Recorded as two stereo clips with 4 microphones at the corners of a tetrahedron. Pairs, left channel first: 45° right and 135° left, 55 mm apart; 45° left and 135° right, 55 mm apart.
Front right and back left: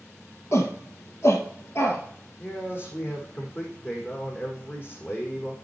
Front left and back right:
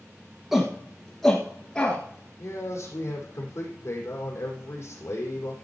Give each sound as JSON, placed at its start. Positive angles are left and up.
{"t": 0.5, "sound": "a shout", "azimuth_deg": -55, "distance_m": 1.9}
{"t": 2.4, "sound": "a man speaking", "azimuth_deg": 5, "distance_m": 5.5}